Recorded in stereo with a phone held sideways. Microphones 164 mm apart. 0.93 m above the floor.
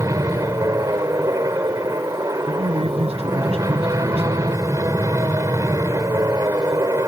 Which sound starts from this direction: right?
A man speaking, at 2.5 s.